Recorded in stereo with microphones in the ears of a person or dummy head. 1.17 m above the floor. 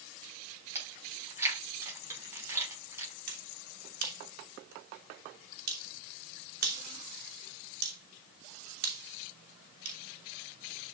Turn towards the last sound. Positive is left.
turn(degrees=-50)  # may be behind; listen again after turning